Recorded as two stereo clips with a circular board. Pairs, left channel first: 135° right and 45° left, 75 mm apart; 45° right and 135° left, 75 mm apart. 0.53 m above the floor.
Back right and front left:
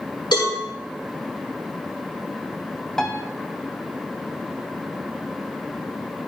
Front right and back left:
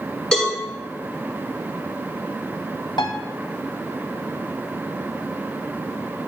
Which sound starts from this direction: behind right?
A cowbell, at 0.3 s.